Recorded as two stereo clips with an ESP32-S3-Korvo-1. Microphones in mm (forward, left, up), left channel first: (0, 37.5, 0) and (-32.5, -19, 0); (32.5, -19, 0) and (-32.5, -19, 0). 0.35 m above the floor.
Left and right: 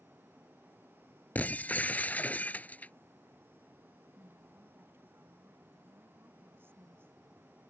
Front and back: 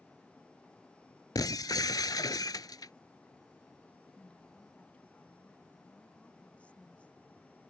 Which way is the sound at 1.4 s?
5° right.